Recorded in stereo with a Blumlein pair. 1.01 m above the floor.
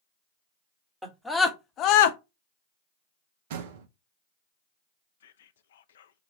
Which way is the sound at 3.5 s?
50° right.